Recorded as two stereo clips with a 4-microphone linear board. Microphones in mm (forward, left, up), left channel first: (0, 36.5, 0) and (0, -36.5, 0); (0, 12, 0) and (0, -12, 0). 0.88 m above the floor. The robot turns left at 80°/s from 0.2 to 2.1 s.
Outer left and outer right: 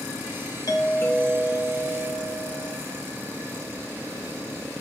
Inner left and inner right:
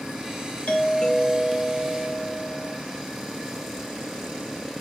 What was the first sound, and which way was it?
A doorbell, 65° left.